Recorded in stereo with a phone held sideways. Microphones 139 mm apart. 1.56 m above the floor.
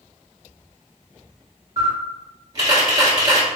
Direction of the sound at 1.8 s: 30° right (ahead or behind).